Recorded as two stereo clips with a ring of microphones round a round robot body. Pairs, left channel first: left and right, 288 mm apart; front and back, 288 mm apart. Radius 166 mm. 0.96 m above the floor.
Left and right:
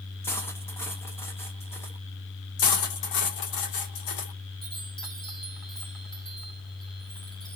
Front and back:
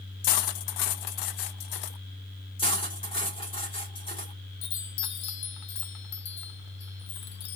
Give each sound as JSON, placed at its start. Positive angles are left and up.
{"t": 0.2, "sound": "cutlery clinking", "azimuth_deg": 5, "distance_m": 0.5}
{"t": 2.6, "sound": "cutlery clinking", "azimuth_deg": 75, "distance_m": 1.9}
{"t": 4.6, "sound": "a chime", "azimuth_deg": 0, "distance_m": 0.5}